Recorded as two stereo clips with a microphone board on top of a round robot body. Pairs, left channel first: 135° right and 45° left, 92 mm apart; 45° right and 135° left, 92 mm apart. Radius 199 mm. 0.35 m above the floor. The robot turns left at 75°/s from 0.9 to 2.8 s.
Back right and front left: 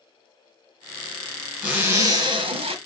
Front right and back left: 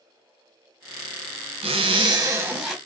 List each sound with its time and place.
1.6 s a zipper: 125° left, 1.2 m; by 2.8 s 40° left, 1.2 m